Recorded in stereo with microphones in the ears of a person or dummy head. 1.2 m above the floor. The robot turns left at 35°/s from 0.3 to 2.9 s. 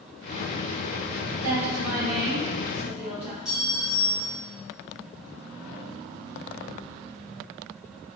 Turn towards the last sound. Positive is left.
turn(degrees=-5)  # may be behind; listen again after turning